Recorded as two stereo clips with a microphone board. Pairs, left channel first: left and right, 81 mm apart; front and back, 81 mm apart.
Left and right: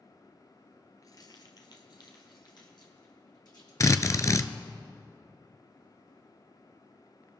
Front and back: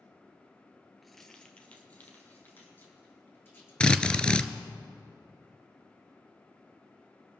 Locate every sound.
1.0 s keys jangling: 90° left, 1.1 m; by 3.7 s 60° left, 4 m
3.8 s a drill: 75° left, 0.6 m